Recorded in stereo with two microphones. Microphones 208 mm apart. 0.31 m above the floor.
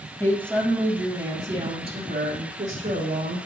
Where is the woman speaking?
15° left (ahead or behind), 2 m; by 3.4 s 45° right (ahead or behind), 4.5 m.